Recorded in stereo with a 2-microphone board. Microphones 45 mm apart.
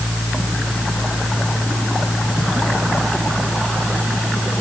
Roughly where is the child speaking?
No child speaking in this recording.